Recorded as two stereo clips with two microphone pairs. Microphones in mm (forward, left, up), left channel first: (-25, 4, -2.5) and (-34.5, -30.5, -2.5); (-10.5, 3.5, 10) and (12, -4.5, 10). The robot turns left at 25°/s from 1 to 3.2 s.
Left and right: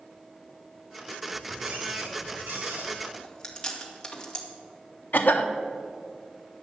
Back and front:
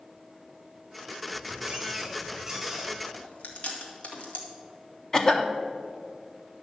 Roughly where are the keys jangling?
I don't hear keys jangling.